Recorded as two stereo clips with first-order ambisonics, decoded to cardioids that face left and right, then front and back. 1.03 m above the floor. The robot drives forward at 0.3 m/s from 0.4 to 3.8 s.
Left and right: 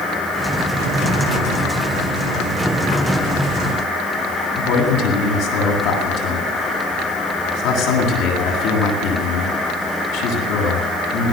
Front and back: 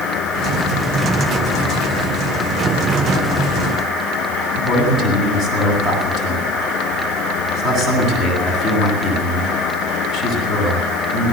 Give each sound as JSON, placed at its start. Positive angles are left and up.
{"t": 4.6, "sound": "a man speaking", "azimuth_deg": 115, "distance_m": 9.0}